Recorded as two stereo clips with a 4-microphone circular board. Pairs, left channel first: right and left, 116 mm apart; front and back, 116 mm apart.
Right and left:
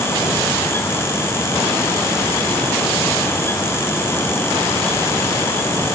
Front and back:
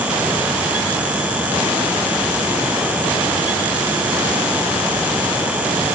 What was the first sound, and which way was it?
Only background noise.